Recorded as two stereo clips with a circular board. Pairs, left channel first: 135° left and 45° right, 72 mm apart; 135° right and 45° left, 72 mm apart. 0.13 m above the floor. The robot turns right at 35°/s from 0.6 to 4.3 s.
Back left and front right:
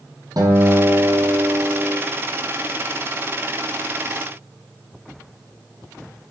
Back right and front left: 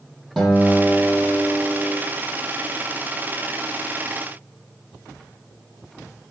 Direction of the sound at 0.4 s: 45° right.